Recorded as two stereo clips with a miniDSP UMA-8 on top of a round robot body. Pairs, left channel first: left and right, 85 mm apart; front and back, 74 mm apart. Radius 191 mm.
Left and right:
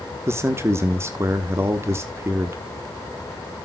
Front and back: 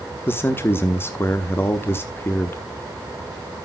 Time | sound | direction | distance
0.3 | a man speaking | 45° right | 1.5 m